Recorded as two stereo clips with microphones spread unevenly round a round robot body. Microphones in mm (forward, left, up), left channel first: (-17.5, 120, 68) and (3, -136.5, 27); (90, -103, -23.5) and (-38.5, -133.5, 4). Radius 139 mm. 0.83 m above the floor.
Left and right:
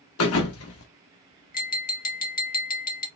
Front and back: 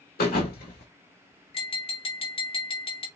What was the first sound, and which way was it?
A thud, 55° left.